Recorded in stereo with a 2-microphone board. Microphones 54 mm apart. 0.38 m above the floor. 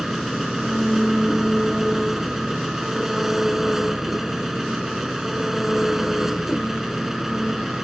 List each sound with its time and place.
0.0 s an engine running: 5° right (ahead or behind)